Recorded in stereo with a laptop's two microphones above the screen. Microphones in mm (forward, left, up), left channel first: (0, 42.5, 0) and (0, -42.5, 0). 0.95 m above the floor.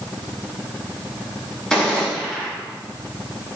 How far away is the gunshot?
About 2 m.